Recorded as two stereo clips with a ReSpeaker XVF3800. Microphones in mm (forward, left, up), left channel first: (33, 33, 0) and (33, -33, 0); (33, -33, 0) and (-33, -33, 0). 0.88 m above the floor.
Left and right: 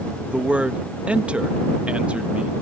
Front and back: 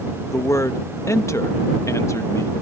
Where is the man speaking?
25° right.